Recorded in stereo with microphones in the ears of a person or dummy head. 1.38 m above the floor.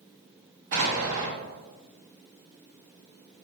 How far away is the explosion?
About 0.9 m.